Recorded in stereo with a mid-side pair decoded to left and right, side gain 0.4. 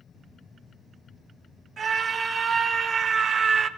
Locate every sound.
1.8 s a scream: 55° right, 2.5 m; by 3.7 s 65° right, 0.7 m